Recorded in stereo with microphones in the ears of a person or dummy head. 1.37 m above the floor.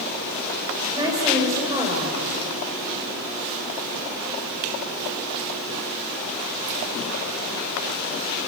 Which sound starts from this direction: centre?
A woman speaking, at 0.9 s.